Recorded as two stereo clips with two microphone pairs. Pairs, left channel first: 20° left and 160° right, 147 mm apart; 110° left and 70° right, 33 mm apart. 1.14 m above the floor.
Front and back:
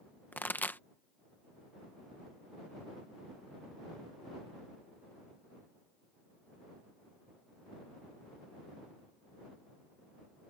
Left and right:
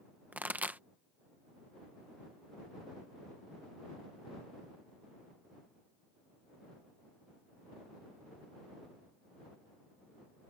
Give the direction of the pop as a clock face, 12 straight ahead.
2 o'clock.